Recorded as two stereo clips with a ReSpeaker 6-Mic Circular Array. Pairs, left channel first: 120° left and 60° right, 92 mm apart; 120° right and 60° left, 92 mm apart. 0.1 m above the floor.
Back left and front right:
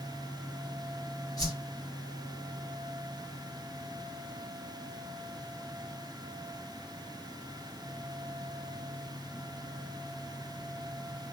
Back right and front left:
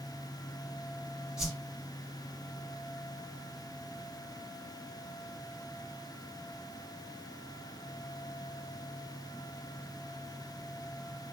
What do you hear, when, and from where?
1.4 s a whoosh: 135° left, 2 m